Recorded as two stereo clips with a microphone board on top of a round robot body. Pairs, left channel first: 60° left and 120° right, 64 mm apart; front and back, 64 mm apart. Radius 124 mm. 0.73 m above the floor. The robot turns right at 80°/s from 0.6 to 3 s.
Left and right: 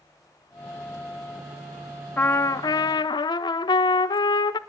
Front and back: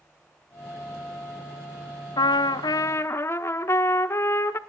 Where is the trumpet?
10° right, 0.5 m; by 4.6 s 55° left, 0.5 m.